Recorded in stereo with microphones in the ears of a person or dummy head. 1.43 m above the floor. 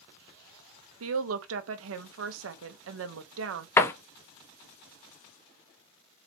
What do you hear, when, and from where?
1.0 s a woman speaking: 80° right, 0.7 m
3.8 s a door slam: 15° left (ahead or behind), 0.5 m